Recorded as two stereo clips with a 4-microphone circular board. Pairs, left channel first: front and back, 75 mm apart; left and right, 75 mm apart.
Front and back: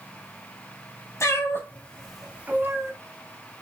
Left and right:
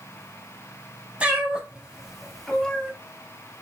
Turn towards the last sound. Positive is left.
turn(degrees=165)